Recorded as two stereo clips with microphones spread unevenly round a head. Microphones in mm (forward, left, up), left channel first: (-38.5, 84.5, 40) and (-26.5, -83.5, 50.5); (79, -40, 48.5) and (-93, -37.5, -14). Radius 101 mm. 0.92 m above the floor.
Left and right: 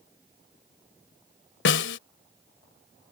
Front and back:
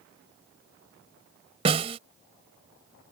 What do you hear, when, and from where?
1.6 s a snare drum: 110° left